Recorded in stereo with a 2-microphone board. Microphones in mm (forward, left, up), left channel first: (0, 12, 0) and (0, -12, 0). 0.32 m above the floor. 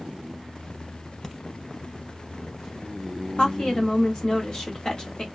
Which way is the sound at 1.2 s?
20° left (ahead or behind).